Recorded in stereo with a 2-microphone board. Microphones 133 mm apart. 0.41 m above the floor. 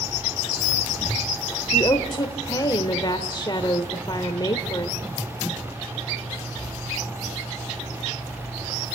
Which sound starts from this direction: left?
A woman speaking, at 1.7 s.